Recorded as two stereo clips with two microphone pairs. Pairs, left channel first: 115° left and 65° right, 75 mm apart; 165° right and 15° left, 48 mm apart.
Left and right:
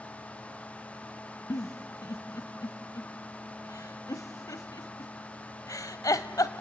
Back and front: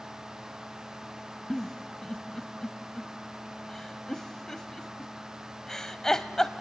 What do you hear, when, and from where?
1.5 s a giggle: 115° left, 0.9 m